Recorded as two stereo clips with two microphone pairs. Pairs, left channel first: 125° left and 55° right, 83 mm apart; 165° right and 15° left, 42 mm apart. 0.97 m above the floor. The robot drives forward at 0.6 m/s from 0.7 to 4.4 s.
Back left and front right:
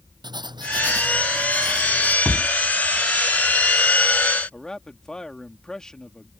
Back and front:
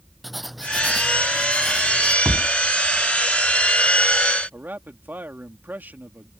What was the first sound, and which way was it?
Writing, 75° right.